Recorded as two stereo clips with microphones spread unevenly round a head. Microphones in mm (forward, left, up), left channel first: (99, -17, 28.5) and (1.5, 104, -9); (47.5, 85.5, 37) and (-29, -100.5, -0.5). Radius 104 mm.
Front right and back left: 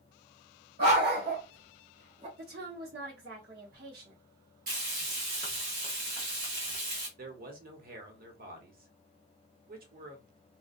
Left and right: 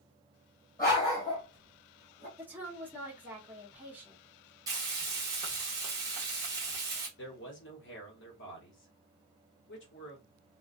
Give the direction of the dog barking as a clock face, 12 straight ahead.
8 o'clock.